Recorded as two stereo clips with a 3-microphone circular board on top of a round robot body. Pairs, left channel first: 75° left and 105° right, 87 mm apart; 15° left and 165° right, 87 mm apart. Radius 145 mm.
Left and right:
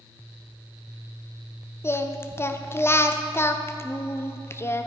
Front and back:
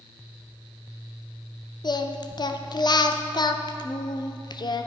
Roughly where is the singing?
Ahead.